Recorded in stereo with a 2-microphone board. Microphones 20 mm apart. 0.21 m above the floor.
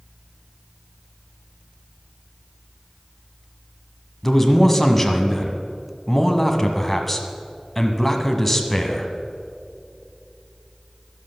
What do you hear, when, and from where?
4.2 s a man speaking: 15° left (ahead or behind), 1.3 m